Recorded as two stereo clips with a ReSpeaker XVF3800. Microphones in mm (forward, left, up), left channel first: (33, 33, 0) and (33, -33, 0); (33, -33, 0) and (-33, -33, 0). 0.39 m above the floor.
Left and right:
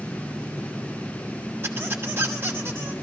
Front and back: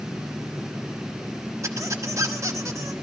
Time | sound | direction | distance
1.6 | a squeak | 145° right | 1.2 m